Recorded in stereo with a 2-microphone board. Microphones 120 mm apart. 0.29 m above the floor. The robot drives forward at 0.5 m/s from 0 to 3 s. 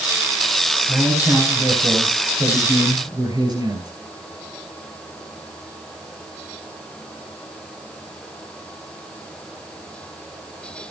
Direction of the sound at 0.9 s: 30° right (ahead or behind).